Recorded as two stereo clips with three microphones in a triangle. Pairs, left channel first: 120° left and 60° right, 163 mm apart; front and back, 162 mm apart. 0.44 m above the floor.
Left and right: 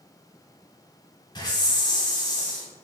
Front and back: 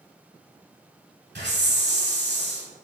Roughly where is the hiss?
Behind.